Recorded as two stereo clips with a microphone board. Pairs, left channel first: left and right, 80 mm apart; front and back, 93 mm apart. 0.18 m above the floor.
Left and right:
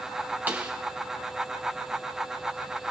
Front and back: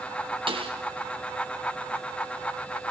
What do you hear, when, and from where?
0.5 s a snare drum: 160° right, 3 m